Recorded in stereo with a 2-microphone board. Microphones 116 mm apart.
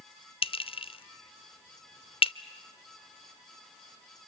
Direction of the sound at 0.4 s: 50° left (ahead or behind).